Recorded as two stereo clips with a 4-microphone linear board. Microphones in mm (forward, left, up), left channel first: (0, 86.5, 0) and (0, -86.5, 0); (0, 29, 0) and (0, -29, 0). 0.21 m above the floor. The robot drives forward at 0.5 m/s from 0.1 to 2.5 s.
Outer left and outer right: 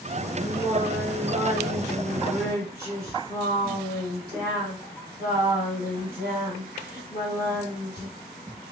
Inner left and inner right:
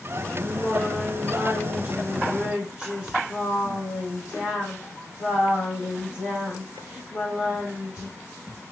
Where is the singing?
25° right (ahead or behind), 1.6 m; by 8.1 s 15° right (ahead or behind), 2.5 m.